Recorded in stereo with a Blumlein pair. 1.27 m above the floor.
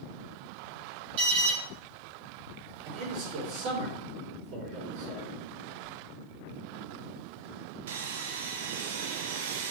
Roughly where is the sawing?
Ahead right.